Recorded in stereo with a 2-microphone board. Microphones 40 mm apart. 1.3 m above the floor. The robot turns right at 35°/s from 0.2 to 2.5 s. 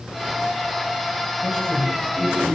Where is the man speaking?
155° left, 9 m; by 2.5 s 165° right, 9 m.